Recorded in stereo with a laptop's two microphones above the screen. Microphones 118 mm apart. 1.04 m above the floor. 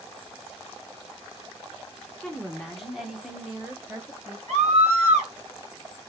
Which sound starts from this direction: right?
A scream, at 4.5 s.